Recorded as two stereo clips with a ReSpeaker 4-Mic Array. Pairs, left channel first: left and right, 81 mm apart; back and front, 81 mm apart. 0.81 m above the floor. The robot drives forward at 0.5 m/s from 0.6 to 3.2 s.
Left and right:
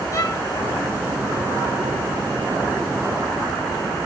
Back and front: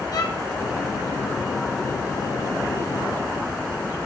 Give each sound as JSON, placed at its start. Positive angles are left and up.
{"t": 0.1, "sound": "a violin", "azimuth_deg": 140, "distance_m": 4.5}